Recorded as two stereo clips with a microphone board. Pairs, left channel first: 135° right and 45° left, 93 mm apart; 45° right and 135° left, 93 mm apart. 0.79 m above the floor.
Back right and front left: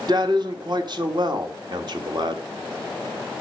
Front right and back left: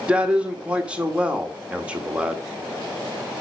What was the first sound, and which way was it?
A man speaking, 60° left.